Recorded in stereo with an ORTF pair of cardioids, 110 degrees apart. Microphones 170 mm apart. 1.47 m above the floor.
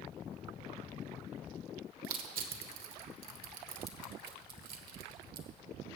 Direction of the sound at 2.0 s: 60° right.